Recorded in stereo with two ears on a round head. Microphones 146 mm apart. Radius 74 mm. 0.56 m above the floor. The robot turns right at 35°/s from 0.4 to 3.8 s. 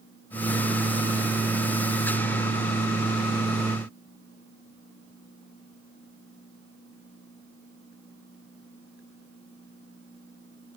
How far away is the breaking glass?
No breaking glass in this recording.